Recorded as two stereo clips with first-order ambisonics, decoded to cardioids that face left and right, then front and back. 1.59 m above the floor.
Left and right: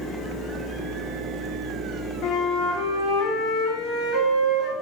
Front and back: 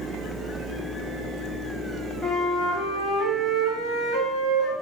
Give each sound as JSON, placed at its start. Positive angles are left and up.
{"t": 2.2, "sound": "a flute", "azimuth_deg": 95, "distance_m": 3.5}